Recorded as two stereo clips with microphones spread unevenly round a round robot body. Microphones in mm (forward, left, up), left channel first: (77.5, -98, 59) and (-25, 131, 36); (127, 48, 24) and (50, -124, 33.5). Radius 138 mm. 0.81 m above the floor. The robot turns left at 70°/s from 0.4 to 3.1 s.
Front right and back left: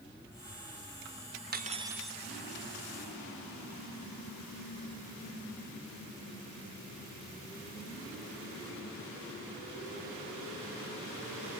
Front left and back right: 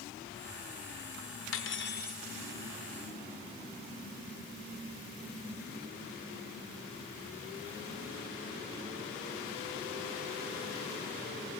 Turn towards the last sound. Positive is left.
turn(degrees=-50)